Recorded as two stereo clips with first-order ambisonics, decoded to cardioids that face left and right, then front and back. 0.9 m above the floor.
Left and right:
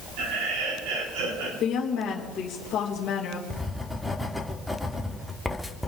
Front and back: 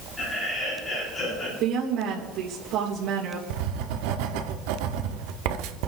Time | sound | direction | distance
0.2 | laughter | 85° right | 7.5 m
1.6 | a woman speaking | 150° left | 3.5 m
3.5 | writing | 175° left | 1.3 m